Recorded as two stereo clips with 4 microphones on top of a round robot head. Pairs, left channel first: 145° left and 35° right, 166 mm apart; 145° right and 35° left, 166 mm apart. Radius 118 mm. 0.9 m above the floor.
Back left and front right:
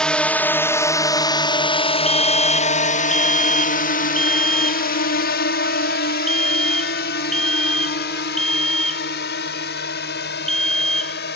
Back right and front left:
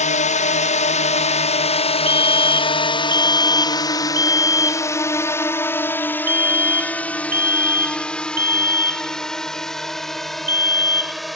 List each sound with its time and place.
0.0 s a drone: 130° right; by 11.3 s 125° left
2.1 s a fire alarm: 55° left